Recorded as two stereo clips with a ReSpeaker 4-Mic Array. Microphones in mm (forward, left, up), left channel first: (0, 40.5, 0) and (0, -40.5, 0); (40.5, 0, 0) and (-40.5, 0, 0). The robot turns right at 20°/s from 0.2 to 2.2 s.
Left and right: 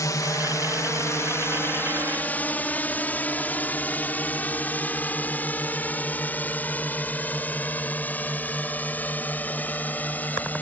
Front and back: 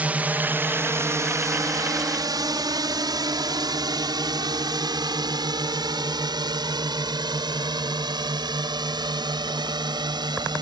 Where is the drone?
115° left; by 10.6 s 160° left.